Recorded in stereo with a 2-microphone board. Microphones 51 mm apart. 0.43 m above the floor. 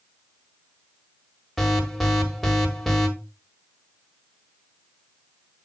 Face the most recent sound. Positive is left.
turn(degrees=5)  # may be behind; listen again after turning